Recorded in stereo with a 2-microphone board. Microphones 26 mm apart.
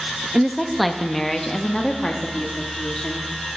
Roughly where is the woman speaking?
Centre.